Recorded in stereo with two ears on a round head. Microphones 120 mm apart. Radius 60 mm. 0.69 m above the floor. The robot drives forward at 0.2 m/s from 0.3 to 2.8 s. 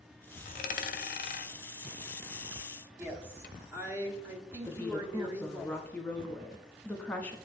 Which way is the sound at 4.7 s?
10° left (ahead or behind).